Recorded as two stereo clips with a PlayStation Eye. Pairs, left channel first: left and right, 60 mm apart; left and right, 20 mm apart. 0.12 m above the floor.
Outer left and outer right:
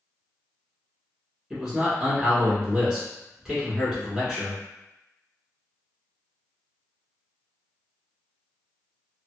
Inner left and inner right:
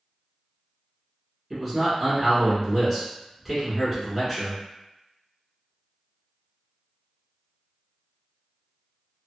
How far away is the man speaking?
About 1.2 m.